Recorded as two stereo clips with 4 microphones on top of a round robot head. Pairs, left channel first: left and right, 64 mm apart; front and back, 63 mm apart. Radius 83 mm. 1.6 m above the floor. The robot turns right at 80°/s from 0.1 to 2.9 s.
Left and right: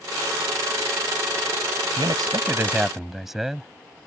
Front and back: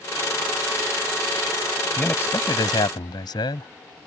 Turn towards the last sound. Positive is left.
turn(degrees=-5)